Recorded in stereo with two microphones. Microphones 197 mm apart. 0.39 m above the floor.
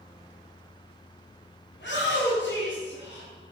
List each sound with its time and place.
1.7 s a shout: 70° left (ahead or behind), 3.5 m